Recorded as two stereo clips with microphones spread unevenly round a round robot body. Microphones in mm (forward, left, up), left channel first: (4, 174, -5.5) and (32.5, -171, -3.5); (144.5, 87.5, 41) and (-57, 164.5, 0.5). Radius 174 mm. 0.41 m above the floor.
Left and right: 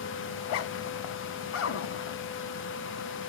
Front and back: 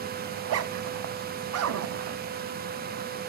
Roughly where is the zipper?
Behind left.